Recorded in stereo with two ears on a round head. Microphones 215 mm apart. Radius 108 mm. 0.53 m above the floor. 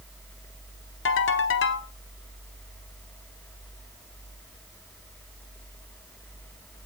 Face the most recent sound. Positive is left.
turn(degrees=55)  # may be behind; listen again after turning